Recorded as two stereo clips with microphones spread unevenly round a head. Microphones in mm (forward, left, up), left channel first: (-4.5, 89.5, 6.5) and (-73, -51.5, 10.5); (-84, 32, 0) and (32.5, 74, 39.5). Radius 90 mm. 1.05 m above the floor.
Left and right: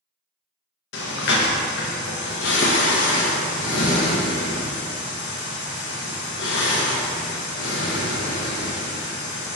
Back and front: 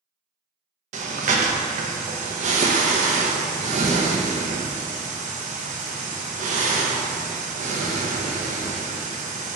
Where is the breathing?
50° left, 0.7 m.